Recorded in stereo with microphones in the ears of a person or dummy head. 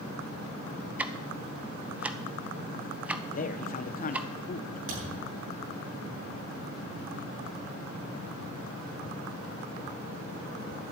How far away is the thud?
About 7.5 m.